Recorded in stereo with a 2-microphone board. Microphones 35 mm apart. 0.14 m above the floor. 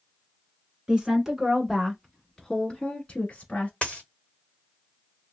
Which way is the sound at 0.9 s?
20° right (ahead or behind).